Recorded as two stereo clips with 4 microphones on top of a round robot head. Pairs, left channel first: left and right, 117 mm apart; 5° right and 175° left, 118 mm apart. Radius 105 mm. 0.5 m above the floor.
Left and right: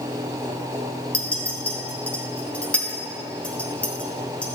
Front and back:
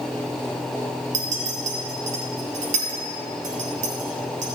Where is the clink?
170° left, 2.5 m.